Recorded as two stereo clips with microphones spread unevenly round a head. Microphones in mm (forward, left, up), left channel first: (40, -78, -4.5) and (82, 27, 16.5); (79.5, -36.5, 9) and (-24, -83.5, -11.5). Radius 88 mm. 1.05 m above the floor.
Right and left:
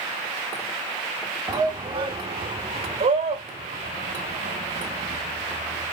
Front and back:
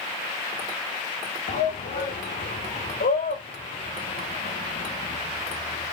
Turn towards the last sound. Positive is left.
turn(degrees=55)